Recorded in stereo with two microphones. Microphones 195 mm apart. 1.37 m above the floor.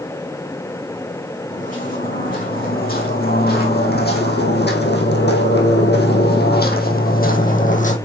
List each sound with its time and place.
1.5 s footsteps: 40° left (ahead or behind), 4 m